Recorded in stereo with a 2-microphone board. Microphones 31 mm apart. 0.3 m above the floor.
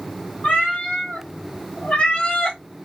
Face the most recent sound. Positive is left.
turn(degrees=25)  # may be behind; listen again after turning